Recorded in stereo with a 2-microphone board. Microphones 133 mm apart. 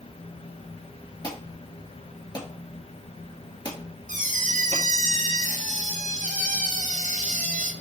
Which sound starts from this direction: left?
An alarm, at 1.2 s.